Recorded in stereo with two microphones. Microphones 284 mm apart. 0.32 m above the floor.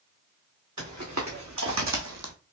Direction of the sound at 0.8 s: 75° right (ahead or behind).